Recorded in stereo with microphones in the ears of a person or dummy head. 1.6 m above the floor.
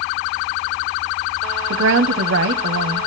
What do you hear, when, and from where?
1.7 s a woman speaking: 60° right (ahead or behind), 0.6 m